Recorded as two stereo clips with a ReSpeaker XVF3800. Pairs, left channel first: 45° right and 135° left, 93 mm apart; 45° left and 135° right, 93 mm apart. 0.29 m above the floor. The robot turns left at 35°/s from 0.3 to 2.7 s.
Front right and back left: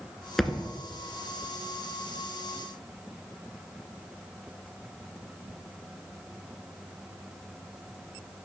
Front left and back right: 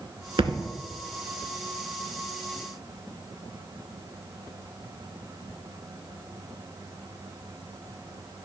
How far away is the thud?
About 0.6 m.